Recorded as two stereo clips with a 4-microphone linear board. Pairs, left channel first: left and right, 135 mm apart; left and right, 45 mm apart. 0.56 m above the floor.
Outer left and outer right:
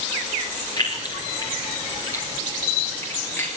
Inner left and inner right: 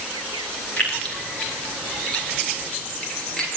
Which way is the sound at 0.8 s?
30° left (ahead or behind).